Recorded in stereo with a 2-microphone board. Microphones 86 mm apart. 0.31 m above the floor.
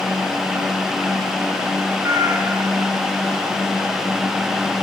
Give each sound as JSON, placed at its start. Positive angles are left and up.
{"t": 2.0, "sound": "a cat meowing", "side_deg": -40, "distance_m": 4.0}